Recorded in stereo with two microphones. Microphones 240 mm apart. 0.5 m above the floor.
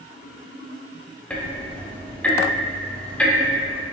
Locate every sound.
1.3 s ticking: 5° left (ahead or behind), 0.5 m